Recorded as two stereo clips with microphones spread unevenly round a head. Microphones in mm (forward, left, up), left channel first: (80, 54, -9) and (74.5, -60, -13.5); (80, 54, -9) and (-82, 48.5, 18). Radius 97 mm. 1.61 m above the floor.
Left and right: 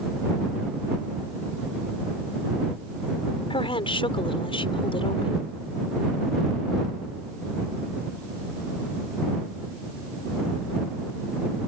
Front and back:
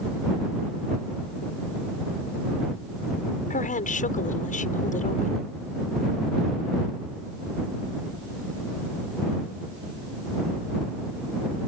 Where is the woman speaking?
45° left.